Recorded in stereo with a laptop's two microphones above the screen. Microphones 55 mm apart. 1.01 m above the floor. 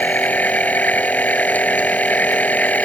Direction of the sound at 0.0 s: 30° left (ahead or behind).